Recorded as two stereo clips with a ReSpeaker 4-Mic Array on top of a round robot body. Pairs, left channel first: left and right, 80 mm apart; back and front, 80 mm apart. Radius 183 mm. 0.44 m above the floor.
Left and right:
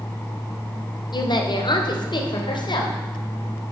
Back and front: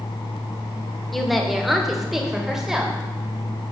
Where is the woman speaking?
95° left, 2.5 m; by 3.0 s 85° left, 3.5 m.